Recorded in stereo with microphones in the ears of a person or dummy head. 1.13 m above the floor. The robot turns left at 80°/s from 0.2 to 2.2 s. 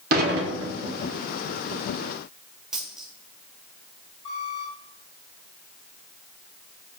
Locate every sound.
0.1 s dishes clattering: 60° right, 1.8 m; by 1.0 s 120° right, 1.8 m
2.7 s a dropped coin: 5° right (ahead or behind), 1.9 m
4.2 s a squeak: 35° left (ahead or behind), 2 m